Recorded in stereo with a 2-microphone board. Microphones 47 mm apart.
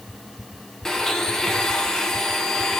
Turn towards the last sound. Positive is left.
turn(degrees=15)  # may be behind; listen again after turning